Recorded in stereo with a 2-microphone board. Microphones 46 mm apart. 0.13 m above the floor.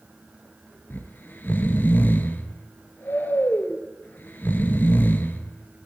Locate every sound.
0.9 s snoring: 50° left (ahead or behind), 0.9 m